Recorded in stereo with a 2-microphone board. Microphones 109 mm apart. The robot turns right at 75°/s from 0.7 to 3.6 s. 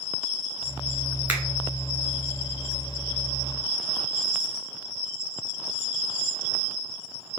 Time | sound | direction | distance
1.3 | a finger snap | 15° right (ahead or behind) | 1.1 m